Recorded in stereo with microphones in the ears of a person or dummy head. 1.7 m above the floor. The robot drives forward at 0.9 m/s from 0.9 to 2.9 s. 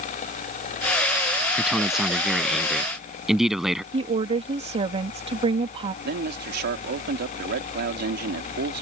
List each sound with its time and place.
1.6 s a man speaking: 10° right (ahead or behind)
3.9 s a woman speaking: 35° right (ahead or behind)
6.0 s a man speaking: 60° right (ahead or behind)